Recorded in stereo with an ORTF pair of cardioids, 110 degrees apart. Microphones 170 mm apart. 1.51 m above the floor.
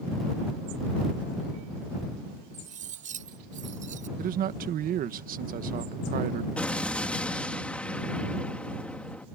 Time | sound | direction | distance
2.5 | cutlery clinking | 50° right | ?
4.2 | a man speaking | 55° right | ?
6.6 | an explosion | 5° left | ?